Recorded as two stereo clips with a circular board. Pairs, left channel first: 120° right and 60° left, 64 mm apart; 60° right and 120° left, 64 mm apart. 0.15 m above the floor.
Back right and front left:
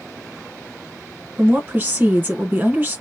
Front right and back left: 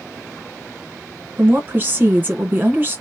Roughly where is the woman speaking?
Left.